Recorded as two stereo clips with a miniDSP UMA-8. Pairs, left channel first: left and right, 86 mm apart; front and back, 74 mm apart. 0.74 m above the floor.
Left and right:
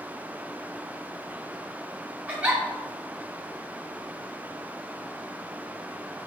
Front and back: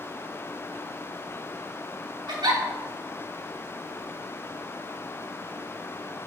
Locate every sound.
2.3 s a giggle: 165° right, 1.7 m